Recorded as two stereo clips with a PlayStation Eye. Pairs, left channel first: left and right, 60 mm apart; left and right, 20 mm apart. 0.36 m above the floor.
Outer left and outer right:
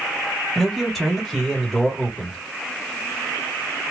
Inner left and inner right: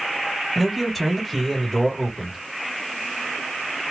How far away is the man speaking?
About 1.8 m.